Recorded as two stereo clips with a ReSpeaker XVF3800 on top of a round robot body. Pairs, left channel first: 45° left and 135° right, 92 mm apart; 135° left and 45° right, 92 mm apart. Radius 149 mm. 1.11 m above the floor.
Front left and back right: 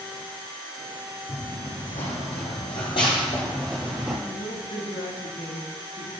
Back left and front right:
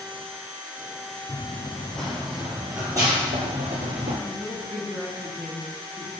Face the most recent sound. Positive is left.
turn(degrees=50)